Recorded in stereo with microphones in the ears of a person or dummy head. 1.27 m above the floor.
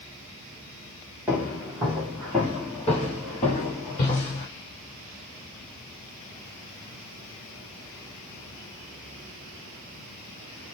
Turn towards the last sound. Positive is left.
turn(degrees=25)  # may be behind; listen again after turning